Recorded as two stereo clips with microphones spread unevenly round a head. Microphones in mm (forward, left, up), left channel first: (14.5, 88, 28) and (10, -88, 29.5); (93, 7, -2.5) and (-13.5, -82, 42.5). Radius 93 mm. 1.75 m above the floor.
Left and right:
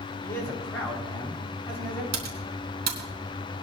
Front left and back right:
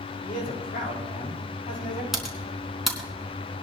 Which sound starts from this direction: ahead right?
Typing on a keyboard, at 2.1 s.